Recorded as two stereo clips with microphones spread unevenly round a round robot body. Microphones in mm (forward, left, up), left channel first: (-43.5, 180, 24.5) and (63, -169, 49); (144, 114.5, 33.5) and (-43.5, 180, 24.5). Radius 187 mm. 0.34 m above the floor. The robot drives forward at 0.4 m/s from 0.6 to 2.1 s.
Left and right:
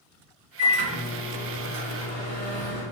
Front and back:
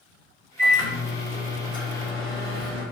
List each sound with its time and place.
0.6 s a microwave: 115° right, 1.4 m; by 2.8 s 140° right, 1.7 m